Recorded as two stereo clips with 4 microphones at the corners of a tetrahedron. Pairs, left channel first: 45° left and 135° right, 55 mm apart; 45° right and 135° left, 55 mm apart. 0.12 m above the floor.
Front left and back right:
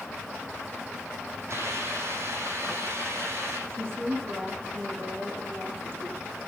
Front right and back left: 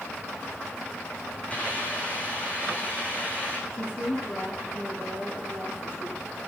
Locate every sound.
1.5 s a hiss: 105° right, 7.5 m
3.7 s a woman speaking: 95° right, 8 m